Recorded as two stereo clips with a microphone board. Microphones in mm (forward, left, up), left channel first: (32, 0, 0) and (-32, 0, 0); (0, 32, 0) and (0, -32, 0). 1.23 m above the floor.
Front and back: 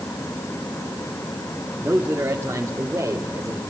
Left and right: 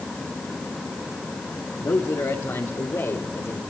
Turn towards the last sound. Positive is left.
turn(degrees=135)